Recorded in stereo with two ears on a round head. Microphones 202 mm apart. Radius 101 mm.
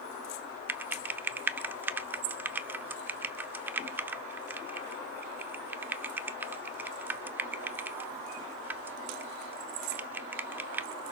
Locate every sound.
0.7 s typing on a keyboard: 10° right (ahead or behind), 0.6 m